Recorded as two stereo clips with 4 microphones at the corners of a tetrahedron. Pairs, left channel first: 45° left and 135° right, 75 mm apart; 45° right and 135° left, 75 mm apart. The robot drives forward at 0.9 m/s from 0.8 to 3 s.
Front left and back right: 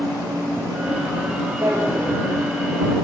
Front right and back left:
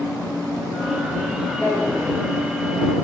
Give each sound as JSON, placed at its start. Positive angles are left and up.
{"t": 1.6, "sound": "a drawer", "azimuth_deg": -85, "distance_m": 7.5}